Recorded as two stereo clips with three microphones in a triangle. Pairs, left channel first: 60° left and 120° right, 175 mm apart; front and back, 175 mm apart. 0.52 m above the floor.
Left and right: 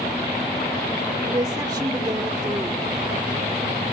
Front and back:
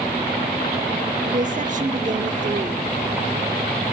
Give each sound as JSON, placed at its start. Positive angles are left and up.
{"t": 1.3, "sound": "a woman speaking", "azimuth_deg": 180, "distance_m": 0.9}